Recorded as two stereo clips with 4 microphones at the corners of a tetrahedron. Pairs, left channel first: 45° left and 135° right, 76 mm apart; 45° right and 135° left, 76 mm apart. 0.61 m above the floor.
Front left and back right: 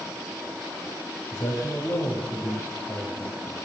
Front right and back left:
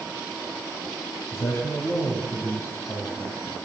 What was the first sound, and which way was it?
A man speaking, 5° left.